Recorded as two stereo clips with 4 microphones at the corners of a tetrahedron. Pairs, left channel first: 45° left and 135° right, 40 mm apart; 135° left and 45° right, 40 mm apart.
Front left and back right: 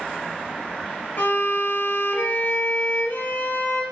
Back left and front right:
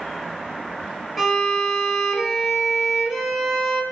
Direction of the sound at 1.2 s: 40° left.